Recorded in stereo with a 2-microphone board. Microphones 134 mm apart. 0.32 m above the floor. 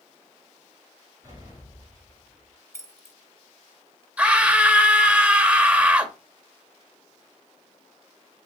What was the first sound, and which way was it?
An explosion, 25° right (ahead or behind).